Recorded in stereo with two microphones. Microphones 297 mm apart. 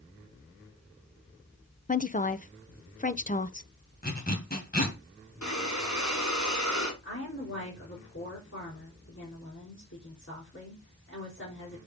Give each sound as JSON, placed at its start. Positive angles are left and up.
{"t": 1.9, "sound": "a woman speaking", "side_deg": 30, "distance_m": 0.6}
{"t": 4.0, "sound": "a zipper", "side_deg": 30, "distance_m": 2.0}
{"t": 5.4, "sound": "breathing", "side_deg": 75, "distance_m": 4.0}
{"t": 7.0, "sound": "a woman speaking", "side_deg": 50, "distance_m": 4.5}